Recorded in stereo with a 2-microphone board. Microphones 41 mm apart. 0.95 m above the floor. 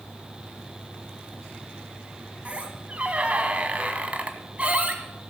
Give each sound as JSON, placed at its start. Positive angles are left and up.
{"t": 2.5, "sound": "a squeak", "side_deg": -30, "distance_m": 1.4}